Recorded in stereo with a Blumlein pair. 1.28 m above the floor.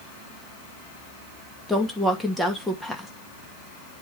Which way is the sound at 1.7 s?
Straight ahead.